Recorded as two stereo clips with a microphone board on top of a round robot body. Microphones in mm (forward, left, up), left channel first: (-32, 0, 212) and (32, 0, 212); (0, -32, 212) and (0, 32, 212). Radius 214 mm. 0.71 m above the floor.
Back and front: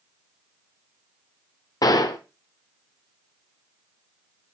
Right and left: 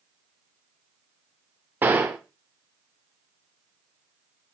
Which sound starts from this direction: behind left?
A gunshot, at 1.8 s.